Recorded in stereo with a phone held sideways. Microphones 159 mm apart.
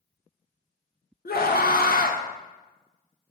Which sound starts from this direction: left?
A scream, at 1.2 s.